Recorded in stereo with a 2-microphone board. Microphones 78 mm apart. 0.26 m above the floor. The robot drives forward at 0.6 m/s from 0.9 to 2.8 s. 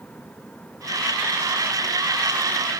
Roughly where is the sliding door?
No sliding door in this recording.